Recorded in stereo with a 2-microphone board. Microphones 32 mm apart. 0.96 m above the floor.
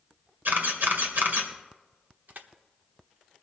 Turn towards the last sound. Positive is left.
turn(degrees=-65)  # may be behind; listen again after turning